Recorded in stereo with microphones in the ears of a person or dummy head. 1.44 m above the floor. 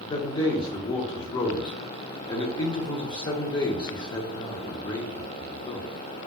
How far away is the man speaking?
About 0.5 m.